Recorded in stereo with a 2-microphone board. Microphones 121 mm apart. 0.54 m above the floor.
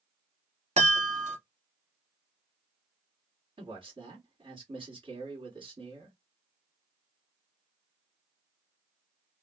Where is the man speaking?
45° right (ahead or behind), 1.7 m.